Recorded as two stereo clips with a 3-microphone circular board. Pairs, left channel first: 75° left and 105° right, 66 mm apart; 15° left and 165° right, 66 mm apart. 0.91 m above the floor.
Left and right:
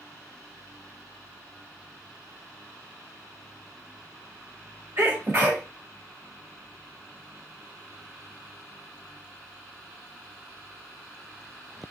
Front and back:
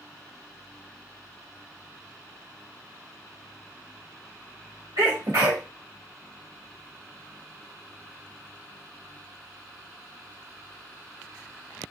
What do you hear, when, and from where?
5.0 s a sneeze: 160° right, 1.4 m